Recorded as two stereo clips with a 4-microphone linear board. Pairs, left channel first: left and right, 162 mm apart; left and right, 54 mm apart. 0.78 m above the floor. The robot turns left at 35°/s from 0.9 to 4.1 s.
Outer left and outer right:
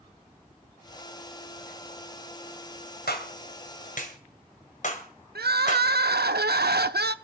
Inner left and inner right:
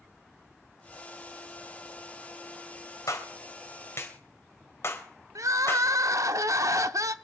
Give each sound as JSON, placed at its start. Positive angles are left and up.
{"t": 3.1, "sound": "a clap", "side_deg": 85, "distance_m": 2.5}
{"t": 5.3, "sound": "crying", "side_deg": -85, "distance_m": 0.7}